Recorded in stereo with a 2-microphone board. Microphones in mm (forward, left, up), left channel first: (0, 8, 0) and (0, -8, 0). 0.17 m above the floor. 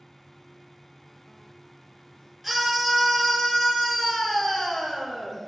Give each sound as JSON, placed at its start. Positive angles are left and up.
{"t": 2.4, "sound": "a scream", "side_deg": 0, "distance_m": 3.5}